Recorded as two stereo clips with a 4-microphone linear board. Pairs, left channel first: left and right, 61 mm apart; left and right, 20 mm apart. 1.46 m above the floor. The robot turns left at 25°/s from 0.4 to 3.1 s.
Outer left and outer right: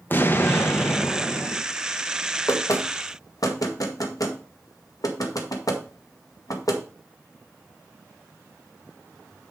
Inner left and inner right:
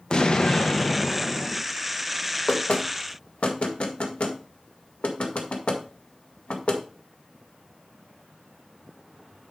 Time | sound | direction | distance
0.1 | an explosion | 80° left | 0.7 m
2.5 | knocking | 60° left (ahead or behind) | 1.6 m